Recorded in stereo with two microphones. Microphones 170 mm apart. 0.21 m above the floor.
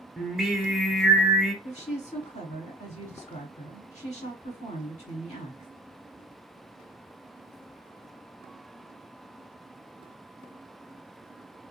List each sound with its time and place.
0.2 s singing: centre (ahead or behind), 0.7 m
1.6 s a woman speaking: 45° left (ahead or behind), 1.7 m